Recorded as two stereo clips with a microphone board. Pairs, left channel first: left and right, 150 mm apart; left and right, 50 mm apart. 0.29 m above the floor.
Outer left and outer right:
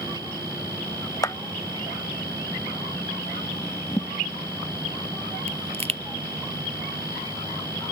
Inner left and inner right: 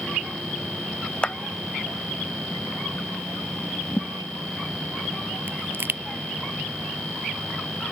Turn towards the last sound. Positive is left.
turn(degrees=-45)  # may be behind; listen again after turning